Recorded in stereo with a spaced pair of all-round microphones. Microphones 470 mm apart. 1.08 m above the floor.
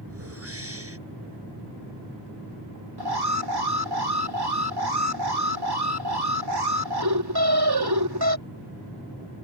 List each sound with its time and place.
0.1 s a whoosh: 30° right (ahead or behind)
3.0 s an alarm: 50° right (ahead or behind)